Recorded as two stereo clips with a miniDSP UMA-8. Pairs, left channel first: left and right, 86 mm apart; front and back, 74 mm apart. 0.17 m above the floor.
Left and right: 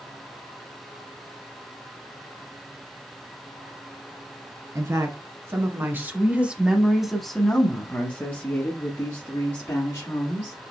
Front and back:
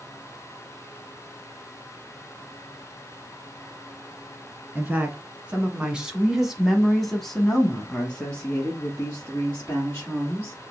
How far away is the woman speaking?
About 1.6 m.